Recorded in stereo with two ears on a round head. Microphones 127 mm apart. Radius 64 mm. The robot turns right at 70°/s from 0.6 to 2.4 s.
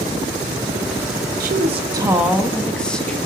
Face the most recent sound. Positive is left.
turn(degrees=5)